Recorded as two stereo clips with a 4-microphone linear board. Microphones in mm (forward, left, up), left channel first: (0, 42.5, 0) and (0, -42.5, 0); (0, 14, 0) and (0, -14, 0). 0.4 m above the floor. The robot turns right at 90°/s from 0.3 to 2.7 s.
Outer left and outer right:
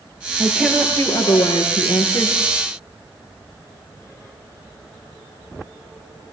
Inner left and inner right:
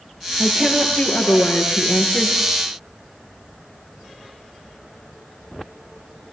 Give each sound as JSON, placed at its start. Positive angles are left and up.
{"t": 0.4, "sound": "a woman speaking", "azimuth_deg": -25, "distance_m": 6.5}